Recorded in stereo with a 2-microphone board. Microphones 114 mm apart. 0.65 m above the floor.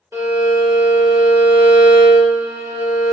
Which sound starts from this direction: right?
A violin, at 0.1 s.